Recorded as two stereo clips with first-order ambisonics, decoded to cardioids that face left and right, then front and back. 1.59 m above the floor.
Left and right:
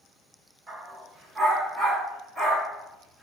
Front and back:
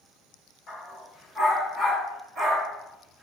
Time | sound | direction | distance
0.7 | a dog barking | 45° right | 1.1 m